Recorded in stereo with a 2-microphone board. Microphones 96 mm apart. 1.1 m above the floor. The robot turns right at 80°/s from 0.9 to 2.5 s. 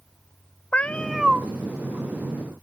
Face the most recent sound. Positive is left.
turn(degrees=-70)